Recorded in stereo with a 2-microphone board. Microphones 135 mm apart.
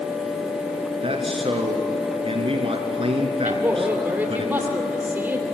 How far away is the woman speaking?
About 2.5 m.